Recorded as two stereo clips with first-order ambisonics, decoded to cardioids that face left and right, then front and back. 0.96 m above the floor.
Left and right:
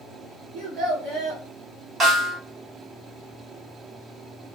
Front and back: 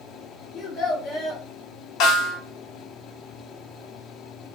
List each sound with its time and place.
0.5 s a child speaking: 65° right, 1.2 m
2.0 s a snare drum: 30° right, 1.0 m